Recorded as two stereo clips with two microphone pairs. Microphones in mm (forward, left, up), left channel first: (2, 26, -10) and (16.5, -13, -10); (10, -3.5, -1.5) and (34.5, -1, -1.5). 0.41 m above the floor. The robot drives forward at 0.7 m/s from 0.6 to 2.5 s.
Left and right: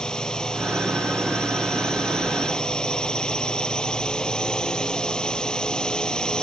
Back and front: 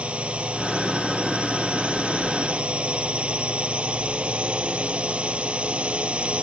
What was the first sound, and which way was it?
A drone, 40° left.